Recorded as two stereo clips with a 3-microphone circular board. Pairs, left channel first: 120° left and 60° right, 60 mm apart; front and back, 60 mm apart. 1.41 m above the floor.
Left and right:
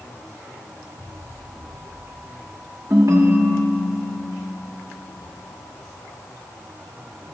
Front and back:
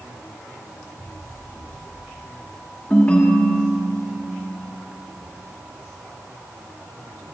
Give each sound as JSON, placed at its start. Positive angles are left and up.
{"t": 2.9, "sound": "a ringtone", "azimuth_deg": -65, "distance_m": 1.7}